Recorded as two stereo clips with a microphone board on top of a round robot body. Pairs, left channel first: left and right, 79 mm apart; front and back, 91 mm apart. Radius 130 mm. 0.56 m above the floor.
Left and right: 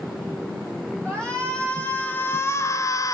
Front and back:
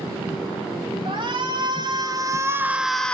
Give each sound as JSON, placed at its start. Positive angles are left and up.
{"t": 1.1, "sound": "a shout", "azimuth_deg": 170, "distance_m": 2.0}